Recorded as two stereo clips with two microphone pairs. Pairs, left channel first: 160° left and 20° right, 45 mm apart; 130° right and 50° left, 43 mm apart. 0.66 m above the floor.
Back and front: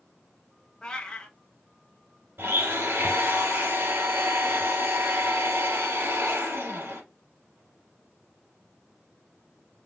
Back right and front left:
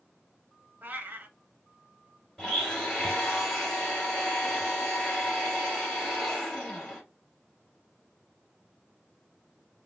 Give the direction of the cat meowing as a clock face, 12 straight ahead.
9 o'clock.